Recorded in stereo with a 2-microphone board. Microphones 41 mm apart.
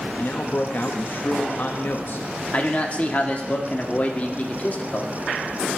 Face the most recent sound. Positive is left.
turn(degrees=35)  # may be behind; listen again after turning